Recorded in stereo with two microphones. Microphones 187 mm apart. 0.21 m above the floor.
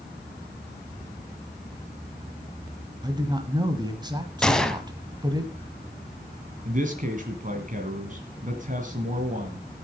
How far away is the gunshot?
About 1.3 m.